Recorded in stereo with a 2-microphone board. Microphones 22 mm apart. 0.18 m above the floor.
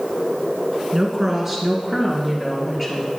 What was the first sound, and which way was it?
A woman speaking, 25° right (ahead or behind).